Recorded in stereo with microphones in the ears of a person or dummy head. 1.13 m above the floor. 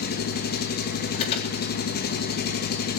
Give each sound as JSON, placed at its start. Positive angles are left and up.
{"t": 0.0, "sound": "an engine running", "side_deg": 50, "distance_m": 1.2}
{"t": 1.1, "sound": "an alarm", "side_deg": 35, "distance_m": 4.0}